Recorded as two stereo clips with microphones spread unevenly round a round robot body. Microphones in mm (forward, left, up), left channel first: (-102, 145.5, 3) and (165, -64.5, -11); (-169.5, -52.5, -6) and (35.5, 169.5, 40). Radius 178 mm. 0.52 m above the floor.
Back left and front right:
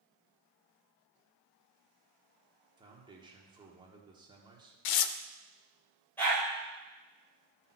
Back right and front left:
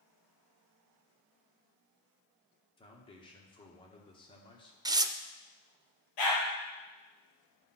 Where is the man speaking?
95° right, 1.0 m.